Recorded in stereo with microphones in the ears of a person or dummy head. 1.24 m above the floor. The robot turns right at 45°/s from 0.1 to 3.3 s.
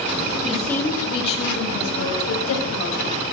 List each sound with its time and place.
0.4 s a woman speaking: 5° left, 6 m; by 3.1 s 130° left, 6 m